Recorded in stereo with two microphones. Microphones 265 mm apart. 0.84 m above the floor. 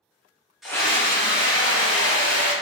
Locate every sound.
0.6 s a scream: centre (ahead or behind), 0.6 m; by 2.5 s 70° left (ahead or behind), 1.7 m